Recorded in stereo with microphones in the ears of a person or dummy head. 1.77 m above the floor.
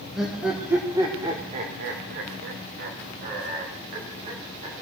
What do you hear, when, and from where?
0.1 s laughter: 5° right (ahead or behind), 1.6 m; by 4.8 s 40° right (ahead or behind), 2.5 m